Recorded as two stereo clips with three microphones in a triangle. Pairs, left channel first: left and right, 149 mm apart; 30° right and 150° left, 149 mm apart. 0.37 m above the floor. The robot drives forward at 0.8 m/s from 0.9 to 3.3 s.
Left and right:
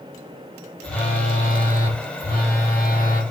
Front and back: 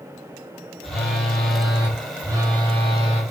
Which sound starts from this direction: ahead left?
A phone buzzing, at 0.8 s.